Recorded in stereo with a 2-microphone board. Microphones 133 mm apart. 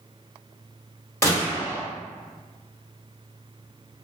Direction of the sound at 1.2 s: 20° left (ahead or behind).